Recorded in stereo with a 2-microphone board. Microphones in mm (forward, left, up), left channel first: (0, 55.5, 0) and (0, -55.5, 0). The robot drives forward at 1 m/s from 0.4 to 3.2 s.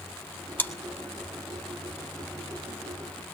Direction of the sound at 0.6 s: 20° left (ahead or behind).